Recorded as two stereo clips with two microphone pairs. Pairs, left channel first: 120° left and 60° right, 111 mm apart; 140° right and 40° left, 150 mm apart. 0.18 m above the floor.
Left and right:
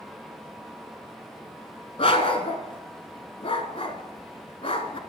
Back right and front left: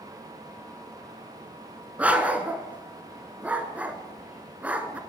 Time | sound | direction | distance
2.0 | a dog barking | 120° left | 0.9 m